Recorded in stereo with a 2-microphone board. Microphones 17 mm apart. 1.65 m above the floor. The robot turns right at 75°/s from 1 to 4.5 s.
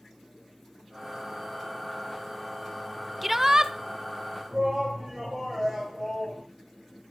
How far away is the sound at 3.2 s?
About 0.7 m.